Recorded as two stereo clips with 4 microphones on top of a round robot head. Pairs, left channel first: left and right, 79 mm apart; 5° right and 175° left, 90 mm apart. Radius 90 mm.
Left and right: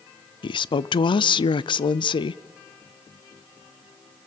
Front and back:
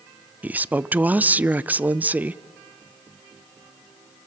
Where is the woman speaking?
105° left, 0.6 m.